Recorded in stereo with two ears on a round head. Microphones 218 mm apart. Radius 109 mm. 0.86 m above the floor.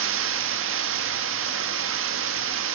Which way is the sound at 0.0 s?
55° right (ahead or behind).